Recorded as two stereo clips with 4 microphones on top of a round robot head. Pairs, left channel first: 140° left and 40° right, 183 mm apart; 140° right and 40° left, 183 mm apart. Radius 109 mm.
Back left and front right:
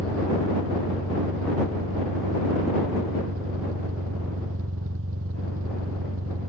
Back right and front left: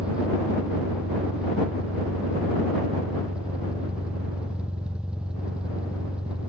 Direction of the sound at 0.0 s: 45° right.